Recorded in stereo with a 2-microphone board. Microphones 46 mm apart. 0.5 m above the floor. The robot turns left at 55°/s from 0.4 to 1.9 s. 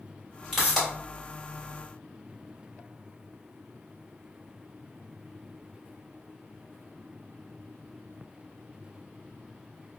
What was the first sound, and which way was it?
A pop, 5° right (ahead or behind).